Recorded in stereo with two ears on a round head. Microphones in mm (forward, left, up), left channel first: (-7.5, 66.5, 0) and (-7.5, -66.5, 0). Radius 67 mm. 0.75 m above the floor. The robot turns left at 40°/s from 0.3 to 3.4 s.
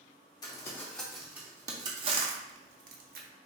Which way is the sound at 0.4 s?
25° left (ahead or behind).